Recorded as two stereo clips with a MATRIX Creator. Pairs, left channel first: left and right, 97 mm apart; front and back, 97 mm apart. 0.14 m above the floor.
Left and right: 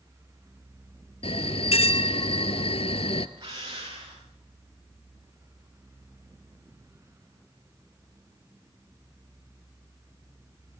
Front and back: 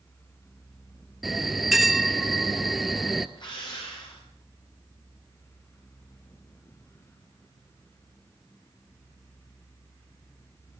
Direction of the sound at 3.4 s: 45° right.